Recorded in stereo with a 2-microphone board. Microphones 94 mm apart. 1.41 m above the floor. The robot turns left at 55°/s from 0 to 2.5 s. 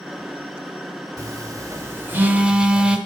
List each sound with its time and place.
1.2 s a phone buzzing: 40° right (ahead or behind), 1.3 m; by 3.0 s 10° right (ahead or behind), 1.3 m